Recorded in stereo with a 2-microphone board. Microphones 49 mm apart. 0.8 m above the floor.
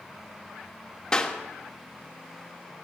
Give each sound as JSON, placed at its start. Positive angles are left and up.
{"t": 1.1, "sound": "a clap", "side_deg": 15, "distance_m": 1.4}